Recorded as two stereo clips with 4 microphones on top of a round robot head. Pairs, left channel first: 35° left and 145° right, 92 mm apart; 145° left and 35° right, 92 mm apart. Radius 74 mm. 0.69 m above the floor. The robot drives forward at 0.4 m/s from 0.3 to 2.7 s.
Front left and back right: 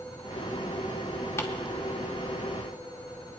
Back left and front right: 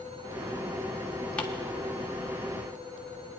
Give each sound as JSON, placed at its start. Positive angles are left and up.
{"t": 1.4, "sound": "ticking", "azimuth_deg": 75, "distance_m": 1.4}